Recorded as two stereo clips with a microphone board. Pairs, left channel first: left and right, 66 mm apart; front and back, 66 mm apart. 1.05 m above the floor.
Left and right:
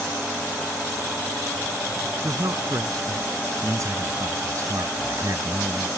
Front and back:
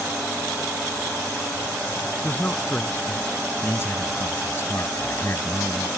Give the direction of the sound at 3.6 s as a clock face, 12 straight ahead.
2 o'clock.